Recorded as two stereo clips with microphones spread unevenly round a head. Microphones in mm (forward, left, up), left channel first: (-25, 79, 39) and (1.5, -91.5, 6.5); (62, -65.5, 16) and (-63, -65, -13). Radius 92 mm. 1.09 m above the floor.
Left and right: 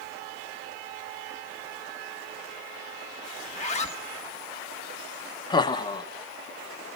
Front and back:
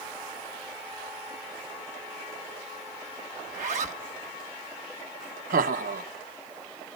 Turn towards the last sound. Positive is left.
turn(degrees=170)